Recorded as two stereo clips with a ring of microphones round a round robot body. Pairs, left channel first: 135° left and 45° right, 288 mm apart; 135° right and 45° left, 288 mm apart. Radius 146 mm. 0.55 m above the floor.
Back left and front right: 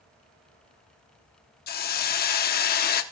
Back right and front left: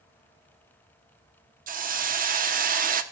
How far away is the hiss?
About 0.8 m.